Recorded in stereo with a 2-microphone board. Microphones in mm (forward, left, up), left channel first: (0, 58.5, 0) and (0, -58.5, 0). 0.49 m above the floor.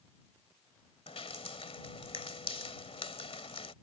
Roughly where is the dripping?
Left.